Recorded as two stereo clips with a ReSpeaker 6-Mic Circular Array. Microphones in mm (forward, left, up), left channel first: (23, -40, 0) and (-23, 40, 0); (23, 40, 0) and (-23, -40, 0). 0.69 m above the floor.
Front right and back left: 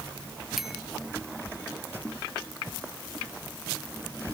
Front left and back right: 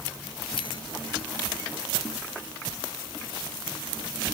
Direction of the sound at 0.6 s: 35° left.